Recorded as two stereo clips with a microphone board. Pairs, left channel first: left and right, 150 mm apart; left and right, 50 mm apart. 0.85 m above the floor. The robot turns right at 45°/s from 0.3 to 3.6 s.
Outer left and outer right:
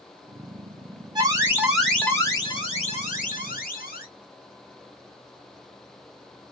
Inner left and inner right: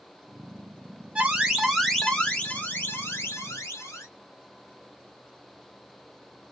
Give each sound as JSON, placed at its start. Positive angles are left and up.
{"t": 1.1, "sound": "an alarm", "azimuth_deg": -30, "distance_m": 1.2}